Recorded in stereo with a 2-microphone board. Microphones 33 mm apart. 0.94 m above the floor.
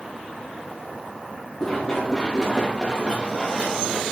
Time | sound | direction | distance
1.6 | running footsteps | 15° left (ahead or behind) | 5.5 m